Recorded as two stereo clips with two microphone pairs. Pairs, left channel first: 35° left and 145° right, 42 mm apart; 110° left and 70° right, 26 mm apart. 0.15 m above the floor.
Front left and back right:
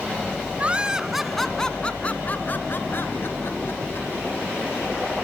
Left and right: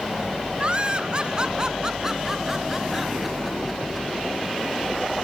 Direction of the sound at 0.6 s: 95° right.